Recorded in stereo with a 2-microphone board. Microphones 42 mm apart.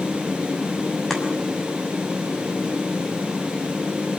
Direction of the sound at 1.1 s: 10° left (ahead or behind).